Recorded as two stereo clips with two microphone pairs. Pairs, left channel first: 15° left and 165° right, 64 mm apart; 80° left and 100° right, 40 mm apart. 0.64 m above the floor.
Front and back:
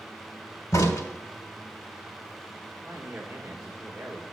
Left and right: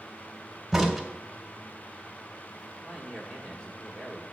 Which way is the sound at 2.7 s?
120° left.